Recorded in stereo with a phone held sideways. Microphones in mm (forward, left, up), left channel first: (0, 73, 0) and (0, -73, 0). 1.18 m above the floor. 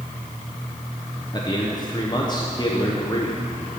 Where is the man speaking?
30° left (ahead or behind), 0.8 m.